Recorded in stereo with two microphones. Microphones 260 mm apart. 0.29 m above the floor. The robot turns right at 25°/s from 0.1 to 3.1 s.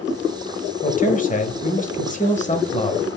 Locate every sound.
0.8 s a man speaking: 75° left, 1.1 m; by 3.1 s 130° left, 1.1 m